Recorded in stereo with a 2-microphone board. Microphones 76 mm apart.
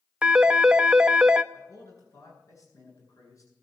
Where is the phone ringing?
10° right (ahead or behind), 0.6 m.